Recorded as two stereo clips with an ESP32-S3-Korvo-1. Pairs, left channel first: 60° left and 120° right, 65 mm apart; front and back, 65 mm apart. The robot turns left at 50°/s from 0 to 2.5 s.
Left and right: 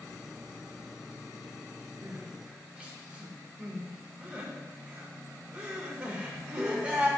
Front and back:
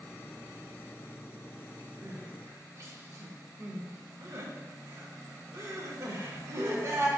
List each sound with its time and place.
2.0 s crying: 160° right, 0.7 m; by 7.1 s 175° left, 0.7 m